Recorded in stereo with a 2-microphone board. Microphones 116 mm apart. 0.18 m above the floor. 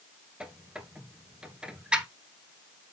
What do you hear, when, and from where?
0.4 s a squeak: 10° right (ahead or behind), 1.2 m